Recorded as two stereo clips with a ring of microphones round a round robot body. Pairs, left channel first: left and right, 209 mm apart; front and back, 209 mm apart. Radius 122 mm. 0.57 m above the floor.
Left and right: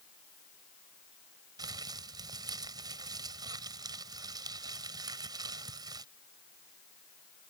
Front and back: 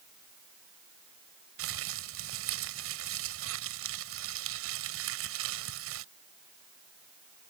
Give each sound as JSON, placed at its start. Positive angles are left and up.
{"t": 1.6, "sound": "crumpling", "azimuth_deg": -165}